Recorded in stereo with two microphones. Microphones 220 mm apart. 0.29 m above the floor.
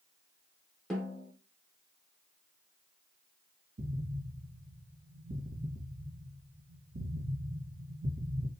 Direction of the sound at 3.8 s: 60° right (ahead or behind).